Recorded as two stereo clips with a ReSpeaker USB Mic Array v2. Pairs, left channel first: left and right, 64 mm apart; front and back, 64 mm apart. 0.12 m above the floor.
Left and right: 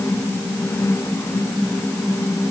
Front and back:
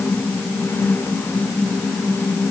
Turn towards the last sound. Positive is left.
No sound to turn to.